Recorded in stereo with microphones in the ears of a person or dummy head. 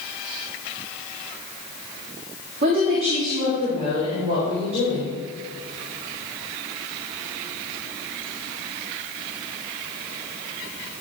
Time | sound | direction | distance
2.6 | a woman speaking | 45° right (ahead or behind) | 2.0 m